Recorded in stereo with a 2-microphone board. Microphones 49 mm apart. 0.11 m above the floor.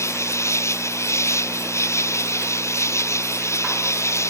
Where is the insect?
75° left (ahead or behind).